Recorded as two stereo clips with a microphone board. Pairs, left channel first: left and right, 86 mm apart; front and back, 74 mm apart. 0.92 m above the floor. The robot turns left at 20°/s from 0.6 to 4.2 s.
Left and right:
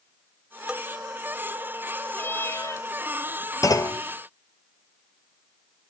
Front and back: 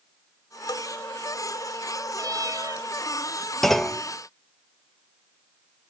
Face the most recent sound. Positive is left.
turn(degrees=70)